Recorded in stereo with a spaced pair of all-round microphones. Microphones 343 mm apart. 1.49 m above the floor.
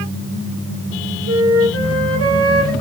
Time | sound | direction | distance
1.3 | a flute | 40° right (ahead or behind) | 1.8 m